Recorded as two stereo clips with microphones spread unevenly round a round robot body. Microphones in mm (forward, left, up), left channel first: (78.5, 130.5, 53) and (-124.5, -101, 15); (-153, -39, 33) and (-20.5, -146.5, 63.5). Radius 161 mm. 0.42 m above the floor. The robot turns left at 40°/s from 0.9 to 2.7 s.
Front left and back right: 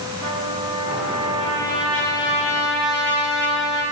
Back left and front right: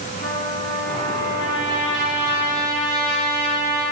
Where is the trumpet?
175° left, 5.5 m; by 3.8 s 105° left, 5.5 m.